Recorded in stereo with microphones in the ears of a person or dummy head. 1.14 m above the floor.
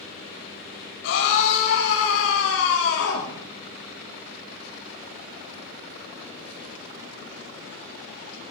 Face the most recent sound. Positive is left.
turn(degrees=85)